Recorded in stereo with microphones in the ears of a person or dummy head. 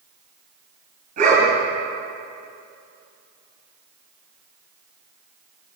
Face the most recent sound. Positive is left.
turn(degrees=-50)  # may be behind; listen again after turning